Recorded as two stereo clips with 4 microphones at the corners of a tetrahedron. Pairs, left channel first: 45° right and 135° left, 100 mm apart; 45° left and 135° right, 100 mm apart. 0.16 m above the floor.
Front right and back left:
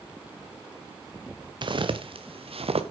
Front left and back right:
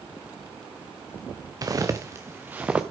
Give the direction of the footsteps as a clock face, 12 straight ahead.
6 o'clock.